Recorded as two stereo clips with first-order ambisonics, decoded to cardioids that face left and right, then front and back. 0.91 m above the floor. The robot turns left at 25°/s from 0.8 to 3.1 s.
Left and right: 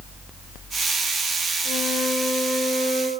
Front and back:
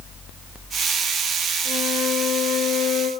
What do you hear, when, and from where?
1.6 s a flute: 45° left, 4 m; by 3.1 s 10° left, 4 m